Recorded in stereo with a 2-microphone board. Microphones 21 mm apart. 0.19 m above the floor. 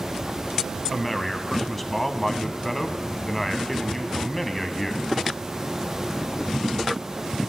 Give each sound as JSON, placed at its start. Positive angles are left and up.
{"t": 0.9, "sound": "a man speaking", "side_deg": 10, "distance_m": 1.0}